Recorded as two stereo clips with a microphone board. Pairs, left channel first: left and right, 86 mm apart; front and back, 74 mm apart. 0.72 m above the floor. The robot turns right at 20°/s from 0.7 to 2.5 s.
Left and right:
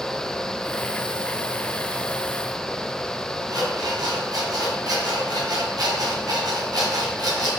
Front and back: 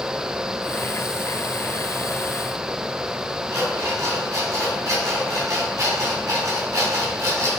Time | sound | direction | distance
3.5 | an alarm clock | 135° right | 3 m